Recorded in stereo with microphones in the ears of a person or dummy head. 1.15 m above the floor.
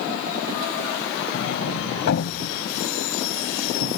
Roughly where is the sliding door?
Left.